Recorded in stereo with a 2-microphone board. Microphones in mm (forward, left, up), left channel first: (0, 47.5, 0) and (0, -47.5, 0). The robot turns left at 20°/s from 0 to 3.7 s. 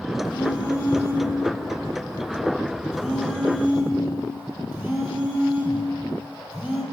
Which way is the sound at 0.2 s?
55° left.